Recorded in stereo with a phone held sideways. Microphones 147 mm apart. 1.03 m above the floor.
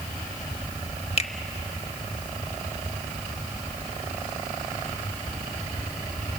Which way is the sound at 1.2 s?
45° left (ahead or behind).